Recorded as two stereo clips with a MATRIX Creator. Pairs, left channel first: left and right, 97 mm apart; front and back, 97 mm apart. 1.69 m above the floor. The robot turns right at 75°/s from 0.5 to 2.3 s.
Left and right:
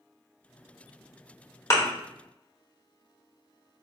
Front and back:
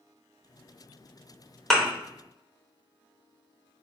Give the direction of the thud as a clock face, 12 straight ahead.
9 o'clock.